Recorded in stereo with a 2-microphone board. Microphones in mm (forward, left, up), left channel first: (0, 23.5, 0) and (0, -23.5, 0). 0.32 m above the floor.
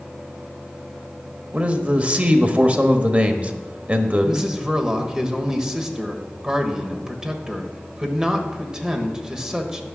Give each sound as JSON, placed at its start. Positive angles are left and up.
{"t": 1.5, "sound": "a man speaking", "side_deg": -30, "distance_m": 1.0}
{"t": 4.2, "sound": "a man speaking", "side_deg": -15, "distance_m": 1.3}